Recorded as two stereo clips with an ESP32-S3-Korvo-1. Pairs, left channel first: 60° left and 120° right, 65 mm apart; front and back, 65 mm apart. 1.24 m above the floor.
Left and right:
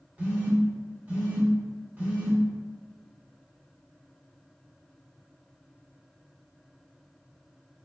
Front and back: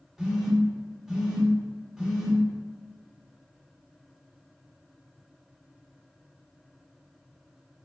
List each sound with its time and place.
0.2 s a phone buzzing: 105° right, 0.8 m